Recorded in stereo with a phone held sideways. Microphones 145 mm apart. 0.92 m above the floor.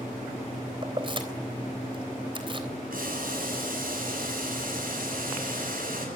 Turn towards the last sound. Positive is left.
turn(degrees=-75)  # may be behind; listen again after turning